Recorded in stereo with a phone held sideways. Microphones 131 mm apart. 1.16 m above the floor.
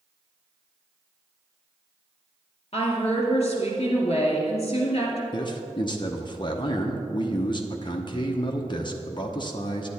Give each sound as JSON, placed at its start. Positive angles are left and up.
{"t": 2.7, "sound": "a woman speaking", "side_deg": 50, "distance_m": 2.5}
{"t": 5.3, "sound": "a man speaking", "side_deg": 35, "distance_m": 0.8}